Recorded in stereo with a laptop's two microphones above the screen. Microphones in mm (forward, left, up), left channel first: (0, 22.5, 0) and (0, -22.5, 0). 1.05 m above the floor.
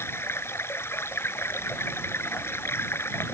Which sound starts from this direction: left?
Running water, at 0.0 s.